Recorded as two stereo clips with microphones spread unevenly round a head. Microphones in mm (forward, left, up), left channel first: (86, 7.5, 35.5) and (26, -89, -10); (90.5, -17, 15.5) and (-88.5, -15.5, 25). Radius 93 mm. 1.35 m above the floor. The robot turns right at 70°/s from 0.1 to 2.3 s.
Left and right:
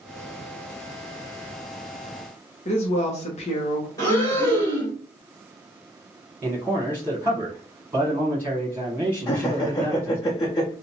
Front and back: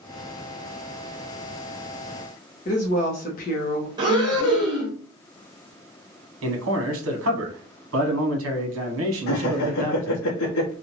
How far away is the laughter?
About 0.7 m.